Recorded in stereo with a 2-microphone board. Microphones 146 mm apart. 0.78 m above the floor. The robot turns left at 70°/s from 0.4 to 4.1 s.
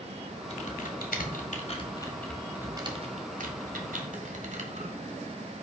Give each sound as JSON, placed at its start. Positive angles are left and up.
{"t": 0.5, "sound": "typing on a keyboard", "side_deg": 45, "distance_m": 1.3}